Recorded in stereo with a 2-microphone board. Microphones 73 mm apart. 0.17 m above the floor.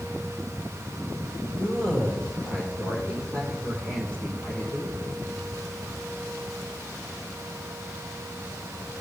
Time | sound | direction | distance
1.6 | a man speaking | 15° left (ahead or behind) | 4.5 m